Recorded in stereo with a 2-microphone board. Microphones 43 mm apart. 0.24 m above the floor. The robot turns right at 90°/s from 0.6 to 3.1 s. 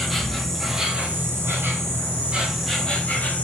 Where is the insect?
175° left, 0.9 m; by 3.4 s 40° left, 0.9 m.